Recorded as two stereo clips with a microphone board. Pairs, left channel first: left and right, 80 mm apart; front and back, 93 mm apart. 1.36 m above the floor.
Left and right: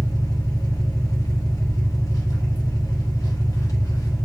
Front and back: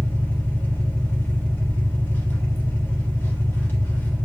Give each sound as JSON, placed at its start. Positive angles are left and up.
{"t": 0.0, "sound": "an engine running", "azimuth_deg": 60, "distance_m": 1.4}